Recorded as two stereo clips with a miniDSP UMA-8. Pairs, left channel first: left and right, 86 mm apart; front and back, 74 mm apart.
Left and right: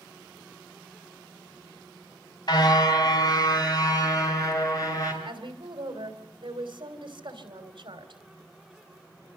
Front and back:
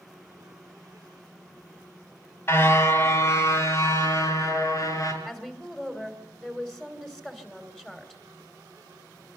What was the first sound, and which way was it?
A car horn, 55° left.